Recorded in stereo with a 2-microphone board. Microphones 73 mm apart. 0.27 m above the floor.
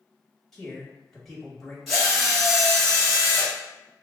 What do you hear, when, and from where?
0.5 s a man speaking: 5° left (ahead or behind), 1.2 m
1.9 s a drill: centre (ahead or behind), 1.6 m